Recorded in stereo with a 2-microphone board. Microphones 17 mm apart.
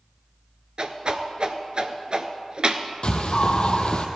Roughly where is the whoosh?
Right.